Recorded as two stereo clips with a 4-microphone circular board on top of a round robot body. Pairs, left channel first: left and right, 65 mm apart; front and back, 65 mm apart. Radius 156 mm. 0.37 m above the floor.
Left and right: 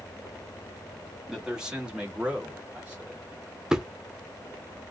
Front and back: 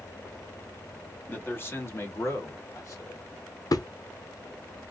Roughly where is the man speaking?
Ahead.